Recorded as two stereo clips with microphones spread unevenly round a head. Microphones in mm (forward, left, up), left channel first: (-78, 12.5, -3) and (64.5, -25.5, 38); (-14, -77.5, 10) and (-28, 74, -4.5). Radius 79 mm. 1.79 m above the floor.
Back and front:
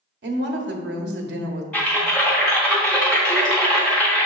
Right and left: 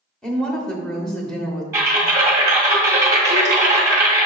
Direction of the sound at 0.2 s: Straight ahead.